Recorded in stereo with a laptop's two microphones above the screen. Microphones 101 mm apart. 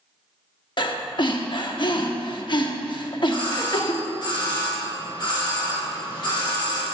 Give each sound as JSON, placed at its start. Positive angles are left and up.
{"t": 0.8, "sound": "breathing", "side_deg": 50, "distance_m": 0.9}
{"t": 3.3, "sound": "a doorbell", "side_deg": 50, "distance_m": 3.0}